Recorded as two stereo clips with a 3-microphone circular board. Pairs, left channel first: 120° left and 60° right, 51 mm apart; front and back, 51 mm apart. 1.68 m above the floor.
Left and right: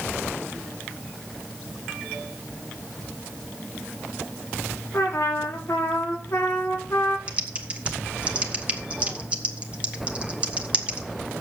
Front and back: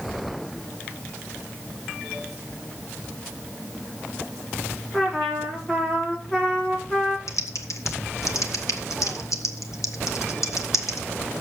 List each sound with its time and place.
4.9 s a trumpet: 80° left, 4.5 m
7.3 s typing on a keyboard: 10° left, 1.3 m